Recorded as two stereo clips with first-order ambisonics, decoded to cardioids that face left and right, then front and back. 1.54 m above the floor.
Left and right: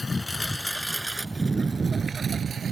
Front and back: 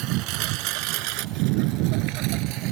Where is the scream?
No scream in this recording.